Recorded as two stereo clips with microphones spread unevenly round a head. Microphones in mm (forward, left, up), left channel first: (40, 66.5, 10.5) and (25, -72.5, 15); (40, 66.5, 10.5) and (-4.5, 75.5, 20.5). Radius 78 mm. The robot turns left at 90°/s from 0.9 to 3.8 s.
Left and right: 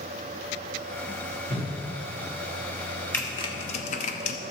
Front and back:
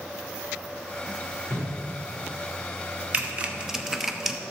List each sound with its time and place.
1.5 s a whoosh: 90° right, 4 m; by 1.7 s 115° right, 4 m
3.1 s typing on a keyboard: 160° left, 0.7 m; by 4.4 s 100° left, 0.7 m